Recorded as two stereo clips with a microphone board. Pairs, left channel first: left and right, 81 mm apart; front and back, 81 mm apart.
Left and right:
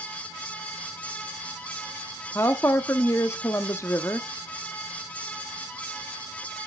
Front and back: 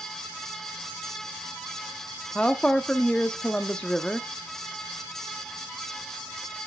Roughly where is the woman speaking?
Left.